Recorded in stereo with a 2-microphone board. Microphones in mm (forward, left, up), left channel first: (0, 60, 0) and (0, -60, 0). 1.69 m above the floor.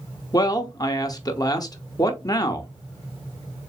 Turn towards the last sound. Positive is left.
turn(degrees=30)  # may be behind; listen again after turning